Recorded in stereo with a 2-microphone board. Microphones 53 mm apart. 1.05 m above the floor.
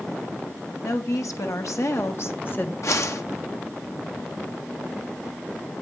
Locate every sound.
0.8 s a woman speaking: 80° left, 2.5 m; by 2.7 s 35° left (ahead or behind), 1.5 m
2.8 s a whoosh: 65° left (ahead or behind), 1.6 m